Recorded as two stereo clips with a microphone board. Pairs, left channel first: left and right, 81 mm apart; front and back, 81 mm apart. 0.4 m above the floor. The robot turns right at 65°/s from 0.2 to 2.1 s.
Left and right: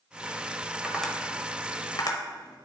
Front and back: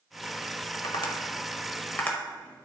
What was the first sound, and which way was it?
Tapping, 10° right.